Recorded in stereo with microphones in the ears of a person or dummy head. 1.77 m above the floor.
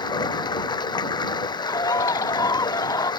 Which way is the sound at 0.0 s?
25° left (ahead or behind).